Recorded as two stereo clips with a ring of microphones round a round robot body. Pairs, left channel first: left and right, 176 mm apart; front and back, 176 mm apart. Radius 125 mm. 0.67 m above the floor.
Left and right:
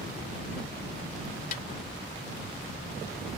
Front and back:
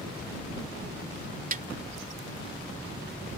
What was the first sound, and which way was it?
A snare drum, 140° left.